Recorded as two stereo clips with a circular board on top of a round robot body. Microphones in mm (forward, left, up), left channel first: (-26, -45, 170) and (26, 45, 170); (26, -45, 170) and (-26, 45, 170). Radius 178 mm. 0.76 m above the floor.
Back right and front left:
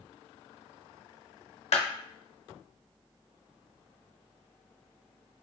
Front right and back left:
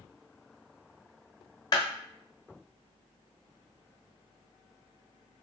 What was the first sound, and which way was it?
A clap, 110° right.